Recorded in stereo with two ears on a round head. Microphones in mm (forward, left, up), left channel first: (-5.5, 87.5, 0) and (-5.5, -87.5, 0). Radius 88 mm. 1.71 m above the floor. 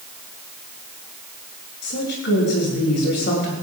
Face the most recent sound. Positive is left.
turn(degrees=60)  # may be behind; listen again after turning